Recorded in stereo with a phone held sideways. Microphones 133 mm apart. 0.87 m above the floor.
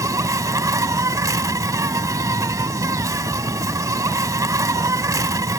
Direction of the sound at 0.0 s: 25° right (ahead or behind).